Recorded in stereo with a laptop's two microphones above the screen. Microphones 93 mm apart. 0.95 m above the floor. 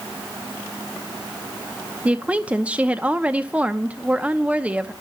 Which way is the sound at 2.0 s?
15° right (ahead or behind).